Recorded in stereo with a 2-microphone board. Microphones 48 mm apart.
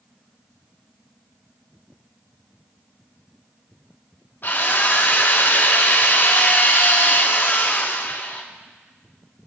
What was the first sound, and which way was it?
A drill, 50° left (ahead or behind).